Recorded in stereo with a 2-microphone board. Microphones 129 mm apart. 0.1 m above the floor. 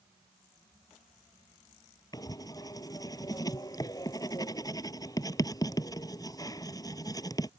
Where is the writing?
30° left (ahead or behind).